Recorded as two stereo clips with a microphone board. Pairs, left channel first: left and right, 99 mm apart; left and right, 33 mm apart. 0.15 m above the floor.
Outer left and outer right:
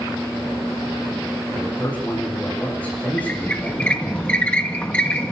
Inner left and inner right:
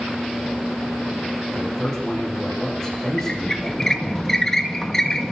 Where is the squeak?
15° left (ahead or behind), 2 m.